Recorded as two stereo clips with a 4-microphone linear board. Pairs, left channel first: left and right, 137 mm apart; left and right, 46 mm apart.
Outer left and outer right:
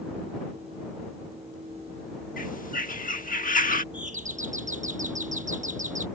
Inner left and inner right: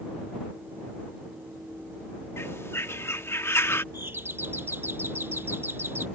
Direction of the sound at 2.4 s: 70° left (ahead or behind).